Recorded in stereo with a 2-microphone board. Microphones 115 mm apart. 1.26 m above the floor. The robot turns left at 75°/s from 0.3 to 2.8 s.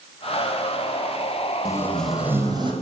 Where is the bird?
I don't hear a bird.